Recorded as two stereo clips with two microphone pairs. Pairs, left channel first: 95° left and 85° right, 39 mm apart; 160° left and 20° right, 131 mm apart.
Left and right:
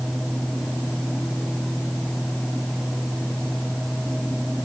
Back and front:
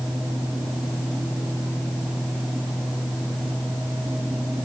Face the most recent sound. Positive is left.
No sound to turn to.